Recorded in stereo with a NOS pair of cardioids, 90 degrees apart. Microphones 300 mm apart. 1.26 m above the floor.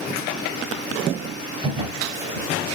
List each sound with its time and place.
1.6 s a drawer: 20° right, 3 m